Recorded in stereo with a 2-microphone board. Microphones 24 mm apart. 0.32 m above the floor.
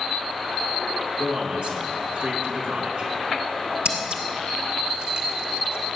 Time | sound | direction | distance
1.2 | a man speaking | 65° right (ahead or behind) | 4 m
3.9 | scissors | 60° right (ahead or behind) | 2.5 m